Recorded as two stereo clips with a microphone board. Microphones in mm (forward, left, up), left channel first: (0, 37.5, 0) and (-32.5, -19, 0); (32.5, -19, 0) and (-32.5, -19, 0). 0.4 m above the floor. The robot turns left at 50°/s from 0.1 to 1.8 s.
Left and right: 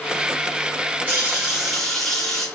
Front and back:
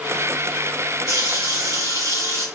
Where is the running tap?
Straight behind, 1.9 m; by 2.5 s 145° left, 1.9 m.